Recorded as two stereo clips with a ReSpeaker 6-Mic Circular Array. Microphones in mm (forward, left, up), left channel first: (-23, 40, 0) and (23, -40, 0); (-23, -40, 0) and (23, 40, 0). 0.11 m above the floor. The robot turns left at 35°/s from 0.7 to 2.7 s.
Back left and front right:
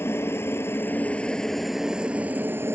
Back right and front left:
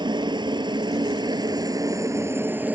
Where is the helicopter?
65° left; by 2.8 s 5° right.